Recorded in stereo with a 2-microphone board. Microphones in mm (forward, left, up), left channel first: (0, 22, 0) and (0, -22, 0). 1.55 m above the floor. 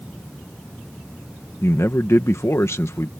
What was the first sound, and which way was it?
A man speaking, 80° left.